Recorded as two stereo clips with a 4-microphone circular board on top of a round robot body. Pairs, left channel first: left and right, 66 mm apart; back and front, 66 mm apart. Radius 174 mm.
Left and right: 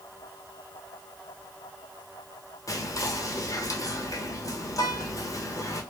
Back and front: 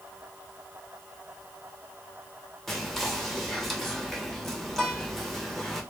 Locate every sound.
2.7 s whispering: 95° left, 1.0 m